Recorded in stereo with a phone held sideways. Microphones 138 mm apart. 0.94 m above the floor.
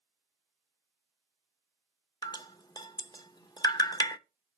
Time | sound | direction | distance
2.2 | dripping | 30° left (ahead or behind) | 0.5 m